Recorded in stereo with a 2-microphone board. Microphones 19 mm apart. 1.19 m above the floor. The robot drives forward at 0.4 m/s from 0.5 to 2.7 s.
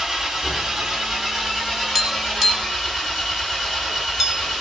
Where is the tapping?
20° right (ahead or behind), 1.7 m; by 4.6 s 15° right (ahead or behind), 2 m.